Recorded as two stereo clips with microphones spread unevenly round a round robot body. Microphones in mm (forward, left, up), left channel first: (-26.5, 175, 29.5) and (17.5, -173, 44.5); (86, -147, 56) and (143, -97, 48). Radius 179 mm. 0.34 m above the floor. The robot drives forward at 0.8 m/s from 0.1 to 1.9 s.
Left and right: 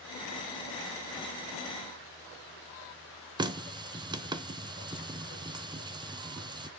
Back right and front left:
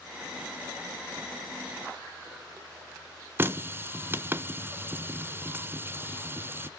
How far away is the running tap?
About 0.7 m.